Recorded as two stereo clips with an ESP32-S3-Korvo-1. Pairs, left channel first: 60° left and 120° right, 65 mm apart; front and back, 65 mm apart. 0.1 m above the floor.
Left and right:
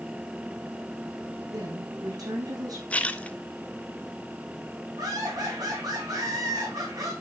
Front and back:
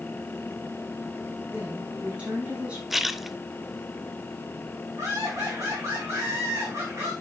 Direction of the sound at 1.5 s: 110° right.